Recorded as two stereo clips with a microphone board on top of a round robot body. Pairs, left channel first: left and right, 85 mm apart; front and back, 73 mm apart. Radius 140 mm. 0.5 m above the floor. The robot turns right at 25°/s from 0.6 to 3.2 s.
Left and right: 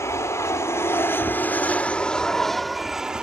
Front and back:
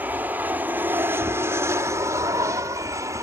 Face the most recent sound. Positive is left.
turn(degrees=-170)